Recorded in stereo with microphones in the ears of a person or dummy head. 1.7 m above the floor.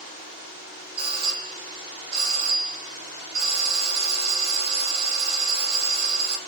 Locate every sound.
1.0 s a doorbell: 35° right (ahead or behind), 1.4 m